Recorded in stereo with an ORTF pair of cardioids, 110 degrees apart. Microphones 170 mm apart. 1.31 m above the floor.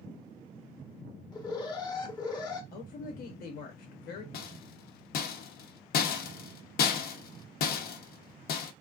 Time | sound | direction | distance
1.3 | an alarm | 25° left | 0.8 m
2.7 | a woman speaking | 65° left | 0.8 m
4.3 | a rattle | 65° left | 0.7 m